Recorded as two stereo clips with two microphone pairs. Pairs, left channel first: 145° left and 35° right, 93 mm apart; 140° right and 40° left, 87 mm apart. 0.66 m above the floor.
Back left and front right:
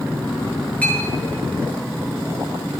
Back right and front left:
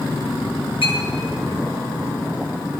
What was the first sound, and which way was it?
A clink, 140° right.